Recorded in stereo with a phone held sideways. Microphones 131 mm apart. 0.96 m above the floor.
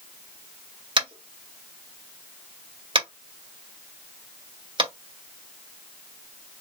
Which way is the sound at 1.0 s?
40° right (ahead or behind).